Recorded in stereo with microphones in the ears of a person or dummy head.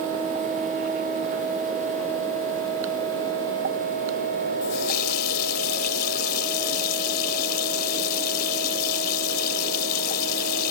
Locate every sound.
4.6 s a running tap: 55° left (ahead or behind)